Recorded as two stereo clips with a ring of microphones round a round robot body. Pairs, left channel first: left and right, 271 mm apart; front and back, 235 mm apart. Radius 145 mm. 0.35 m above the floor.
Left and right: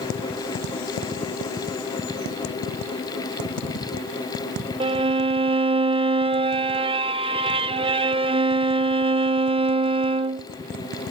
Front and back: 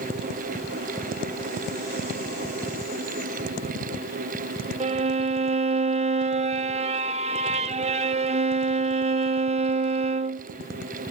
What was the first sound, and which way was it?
A violin, 145° right.